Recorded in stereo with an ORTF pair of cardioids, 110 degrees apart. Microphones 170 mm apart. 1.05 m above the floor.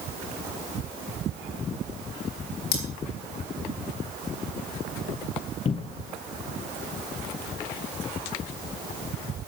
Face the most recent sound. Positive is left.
turn(degrees=35)